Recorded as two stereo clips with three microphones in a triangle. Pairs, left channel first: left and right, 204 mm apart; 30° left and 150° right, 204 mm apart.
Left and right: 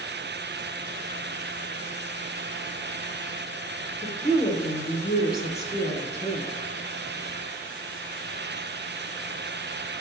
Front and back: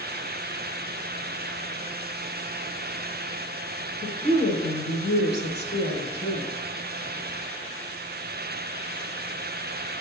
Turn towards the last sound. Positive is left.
turn(degrees=65)